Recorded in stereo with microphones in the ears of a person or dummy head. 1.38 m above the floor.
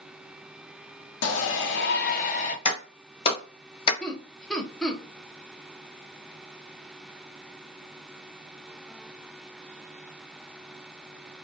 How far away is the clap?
About 1.1 m.